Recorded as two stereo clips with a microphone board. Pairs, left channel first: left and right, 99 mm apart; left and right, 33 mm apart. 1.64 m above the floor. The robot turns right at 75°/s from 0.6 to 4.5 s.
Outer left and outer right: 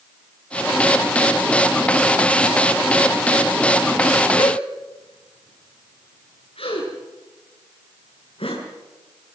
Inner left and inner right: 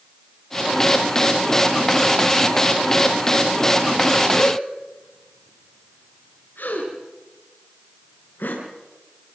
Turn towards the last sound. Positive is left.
turn(degrees=70)  # may be behind; listen again after turning